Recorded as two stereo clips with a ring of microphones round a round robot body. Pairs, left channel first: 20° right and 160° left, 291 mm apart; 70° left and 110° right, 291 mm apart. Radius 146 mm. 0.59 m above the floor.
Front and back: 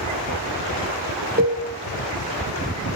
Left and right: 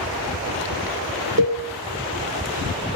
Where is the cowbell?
150° right, 1.4 m.